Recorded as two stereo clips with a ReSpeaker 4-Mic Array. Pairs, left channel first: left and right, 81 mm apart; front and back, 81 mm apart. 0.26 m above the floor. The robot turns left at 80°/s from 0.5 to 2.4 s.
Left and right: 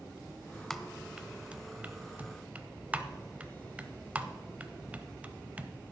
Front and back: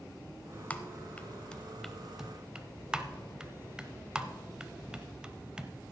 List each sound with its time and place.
0.7 s typing on a keyboard: 15° left, 0.6 m; by 5.9 s 120° right, 0.6 m